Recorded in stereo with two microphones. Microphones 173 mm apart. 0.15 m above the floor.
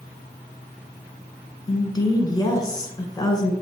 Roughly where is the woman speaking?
Left.